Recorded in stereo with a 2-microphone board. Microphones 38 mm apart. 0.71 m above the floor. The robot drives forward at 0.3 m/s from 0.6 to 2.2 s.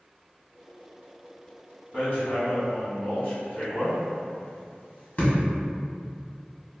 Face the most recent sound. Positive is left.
turn(degrees=50)  # may be behind; listen again after turning